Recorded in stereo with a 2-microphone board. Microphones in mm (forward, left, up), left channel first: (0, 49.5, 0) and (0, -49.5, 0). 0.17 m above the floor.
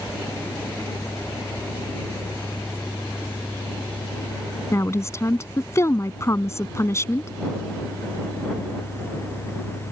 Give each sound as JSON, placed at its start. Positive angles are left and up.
{"t": 4.7, "sound": "a woman speaking", "side_deg": 30}